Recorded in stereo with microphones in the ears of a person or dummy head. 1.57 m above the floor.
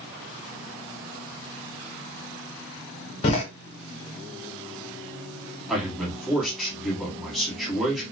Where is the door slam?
35° left (ahead or behind), 0.9 m.